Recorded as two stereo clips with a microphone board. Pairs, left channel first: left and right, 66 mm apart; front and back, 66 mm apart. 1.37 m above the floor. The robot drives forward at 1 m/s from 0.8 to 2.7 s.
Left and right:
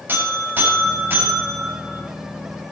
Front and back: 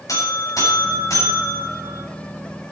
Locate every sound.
0.1 s a buzzer: 30° right, 7 m; by 2.0 s 35° right, 6 m